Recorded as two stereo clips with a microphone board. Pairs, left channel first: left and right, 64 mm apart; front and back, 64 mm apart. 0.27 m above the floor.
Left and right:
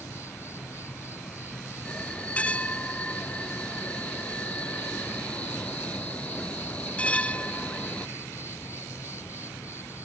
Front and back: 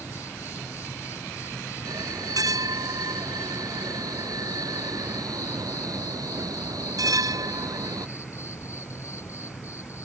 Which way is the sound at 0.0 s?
45° left.